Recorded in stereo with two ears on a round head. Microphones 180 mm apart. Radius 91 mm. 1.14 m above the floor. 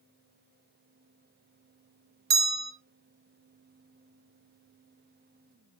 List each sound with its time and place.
2.3 s a bell: 50° right (ahead or behind), 0.9 m